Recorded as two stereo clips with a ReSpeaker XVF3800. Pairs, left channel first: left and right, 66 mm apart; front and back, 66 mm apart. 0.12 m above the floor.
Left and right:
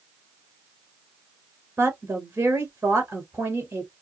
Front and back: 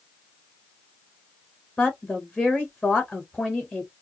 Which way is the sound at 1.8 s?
55° right.